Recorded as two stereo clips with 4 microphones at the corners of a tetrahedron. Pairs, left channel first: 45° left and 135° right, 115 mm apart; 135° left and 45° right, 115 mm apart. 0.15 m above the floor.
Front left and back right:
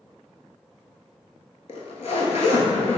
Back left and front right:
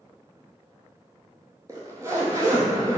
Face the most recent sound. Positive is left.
turn(degrees=20)